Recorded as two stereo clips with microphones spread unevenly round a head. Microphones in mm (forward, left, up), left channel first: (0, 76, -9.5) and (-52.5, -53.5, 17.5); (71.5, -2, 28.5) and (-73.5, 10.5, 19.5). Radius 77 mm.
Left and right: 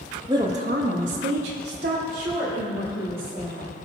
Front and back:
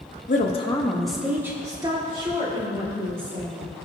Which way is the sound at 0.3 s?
40° right.